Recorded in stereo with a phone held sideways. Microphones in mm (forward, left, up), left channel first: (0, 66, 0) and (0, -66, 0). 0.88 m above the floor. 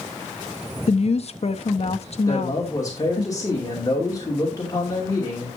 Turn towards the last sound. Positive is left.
turn(degrees=25)  # may be behind; listen again after turning